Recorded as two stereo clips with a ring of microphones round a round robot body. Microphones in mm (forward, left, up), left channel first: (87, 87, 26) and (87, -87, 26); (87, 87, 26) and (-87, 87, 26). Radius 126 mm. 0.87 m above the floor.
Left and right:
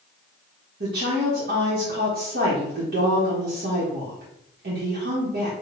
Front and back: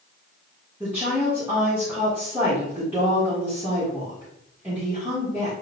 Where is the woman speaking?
100° right, 1.2 m.